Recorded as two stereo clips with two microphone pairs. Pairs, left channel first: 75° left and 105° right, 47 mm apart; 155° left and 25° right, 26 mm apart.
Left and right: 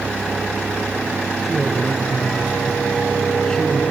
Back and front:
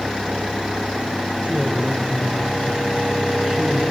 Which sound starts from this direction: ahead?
A man speaking, at 1.4 s.